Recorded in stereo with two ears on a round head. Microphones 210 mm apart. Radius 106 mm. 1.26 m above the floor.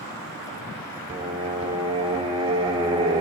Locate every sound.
1.1 s singing: 20° right (ahead or behind), 1.3 m